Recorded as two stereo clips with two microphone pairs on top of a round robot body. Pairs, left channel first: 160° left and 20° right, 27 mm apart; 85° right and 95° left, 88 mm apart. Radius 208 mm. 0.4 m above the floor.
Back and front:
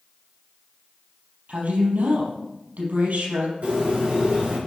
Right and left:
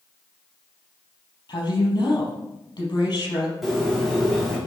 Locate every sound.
1.5 s a woman speaking: 45° right, 4.5 m
3.6 s a bird: 5° left, 4 m